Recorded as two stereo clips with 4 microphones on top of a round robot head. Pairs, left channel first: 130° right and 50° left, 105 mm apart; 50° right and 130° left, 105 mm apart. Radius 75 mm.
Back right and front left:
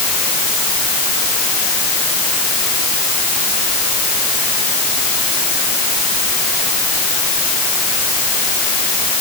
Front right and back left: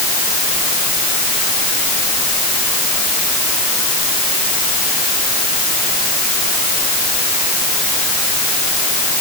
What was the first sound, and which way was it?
Only background noise.